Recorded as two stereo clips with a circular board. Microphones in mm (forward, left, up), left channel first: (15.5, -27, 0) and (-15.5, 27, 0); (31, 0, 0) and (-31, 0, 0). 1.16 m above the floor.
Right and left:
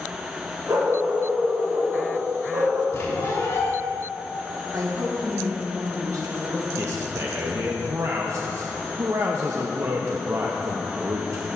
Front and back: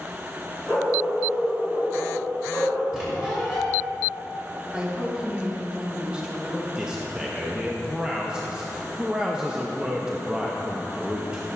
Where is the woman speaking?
105° left, 1.5 m.